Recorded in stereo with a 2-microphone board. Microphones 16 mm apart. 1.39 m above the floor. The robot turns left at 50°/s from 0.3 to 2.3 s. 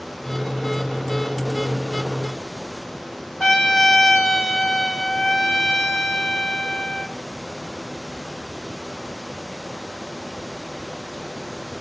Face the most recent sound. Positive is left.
turn(degrees=85)